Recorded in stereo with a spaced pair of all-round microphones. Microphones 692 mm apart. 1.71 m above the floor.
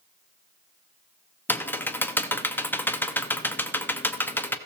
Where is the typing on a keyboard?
5° left (ahead or behind), 0.5 m.